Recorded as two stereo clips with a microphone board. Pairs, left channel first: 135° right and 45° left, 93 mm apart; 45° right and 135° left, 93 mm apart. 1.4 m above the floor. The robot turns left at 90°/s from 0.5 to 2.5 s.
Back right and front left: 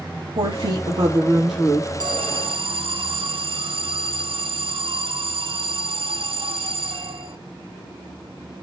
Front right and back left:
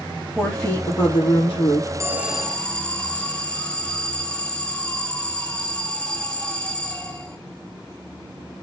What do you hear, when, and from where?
0.3 s a woman speaking: 45° left, 4 m; by 1.9 s 85° right, 4 m
2.0 s an alarm: 80° left, 1.2 m; by 7.4 s 35° left, 1.2 m